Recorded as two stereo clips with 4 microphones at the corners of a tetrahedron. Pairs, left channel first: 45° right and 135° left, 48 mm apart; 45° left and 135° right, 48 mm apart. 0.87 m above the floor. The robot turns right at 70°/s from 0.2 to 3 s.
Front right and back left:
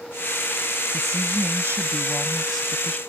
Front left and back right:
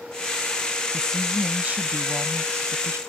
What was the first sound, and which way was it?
A woman speaking, 115° left.